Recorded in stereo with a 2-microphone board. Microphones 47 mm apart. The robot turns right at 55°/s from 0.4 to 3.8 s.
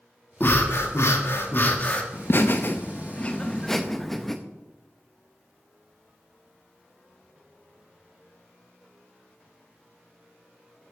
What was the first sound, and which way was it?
Breathing, 55° left.